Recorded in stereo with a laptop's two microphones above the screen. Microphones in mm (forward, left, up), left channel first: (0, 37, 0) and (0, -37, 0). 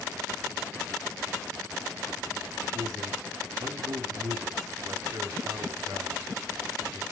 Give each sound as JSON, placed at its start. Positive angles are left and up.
{"t": 2.7, "sound": "a man speaking", "side_deg": -60, "distance_m": 3.0}